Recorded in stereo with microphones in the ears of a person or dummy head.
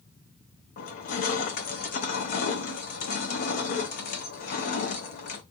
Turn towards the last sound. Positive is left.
turn(degrees=50)  # may be behind; listen again after turning